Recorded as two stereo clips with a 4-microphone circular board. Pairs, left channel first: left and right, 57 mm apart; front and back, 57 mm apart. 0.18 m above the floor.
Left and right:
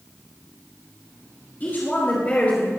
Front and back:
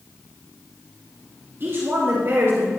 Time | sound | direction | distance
1.6 | a woman speaking | 140° left | 3.5 m